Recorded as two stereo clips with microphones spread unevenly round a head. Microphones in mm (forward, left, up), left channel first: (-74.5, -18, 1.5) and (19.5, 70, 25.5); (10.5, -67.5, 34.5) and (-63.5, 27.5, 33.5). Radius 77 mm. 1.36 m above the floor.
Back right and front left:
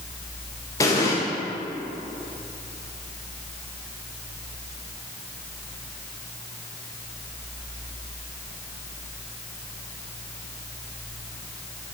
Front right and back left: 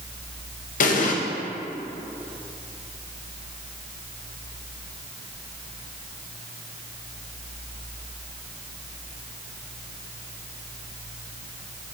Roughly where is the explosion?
Ahead right.